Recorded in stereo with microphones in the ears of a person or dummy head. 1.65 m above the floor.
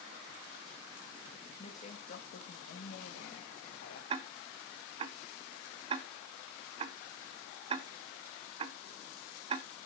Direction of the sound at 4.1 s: 30° right (ahead or behind).